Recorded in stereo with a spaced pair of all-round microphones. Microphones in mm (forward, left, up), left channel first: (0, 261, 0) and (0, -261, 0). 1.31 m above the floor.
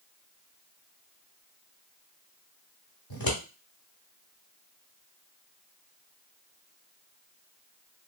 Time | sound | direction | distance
3.1 | scissors | 40° left (ahead or behind) | 1.3 m